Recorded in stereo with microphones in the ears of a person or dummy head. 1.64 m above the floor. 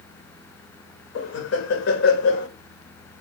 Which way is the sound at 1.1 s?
70° left (ahead or behind).